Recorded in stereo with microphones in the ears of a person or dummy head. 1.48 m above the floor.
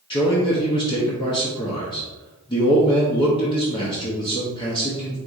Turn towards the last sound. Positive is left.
turn(degrees=25)  # may be behind; listen again after turning